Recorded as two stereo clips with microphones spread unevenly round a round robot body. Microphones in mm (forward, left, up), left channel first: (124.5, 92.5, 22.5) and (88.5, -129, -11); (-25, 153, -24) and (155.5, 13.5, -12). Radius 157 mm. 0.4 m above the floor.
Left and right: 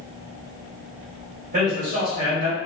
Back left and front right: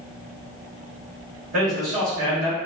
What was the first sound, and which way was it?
A man speaking, 80° right.